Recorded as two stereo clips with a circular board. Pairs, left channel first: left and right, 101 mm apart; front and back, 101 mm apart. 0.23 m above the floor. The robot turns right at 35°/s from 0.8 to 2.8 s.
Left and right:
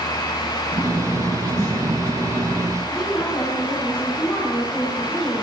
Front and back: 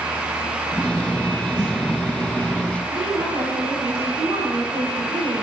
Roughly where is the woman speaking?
Behind.